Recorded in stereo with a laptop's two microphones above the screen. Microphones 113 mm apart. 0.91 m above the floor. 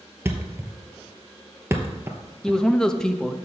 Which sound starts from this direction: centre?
A man speaking, at 2.4 s.